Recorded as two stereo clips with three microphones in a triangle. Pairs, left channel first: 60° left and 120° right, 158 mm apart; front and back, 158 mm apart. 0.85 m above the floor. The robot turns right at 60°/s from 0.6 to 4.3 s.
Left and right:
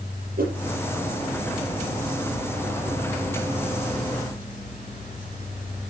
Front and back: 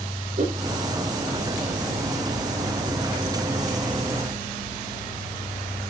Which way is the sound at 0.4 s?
140° right.